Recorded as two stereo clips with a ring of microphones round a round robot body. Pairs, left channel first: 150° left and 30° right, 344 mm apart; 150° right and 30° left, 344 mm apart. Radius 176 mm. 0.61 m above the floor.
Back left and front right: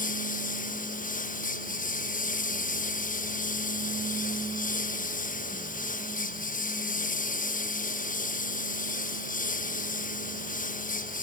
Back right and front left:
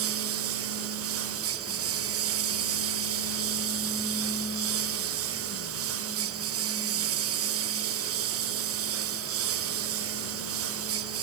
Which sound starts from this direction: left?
A lawn mower, at 0.0 s.